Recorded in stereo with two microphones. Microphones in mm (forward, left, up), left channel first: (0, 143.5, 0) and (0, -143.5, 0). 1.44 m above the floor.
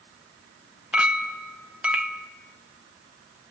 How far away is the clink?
About 0.9 m.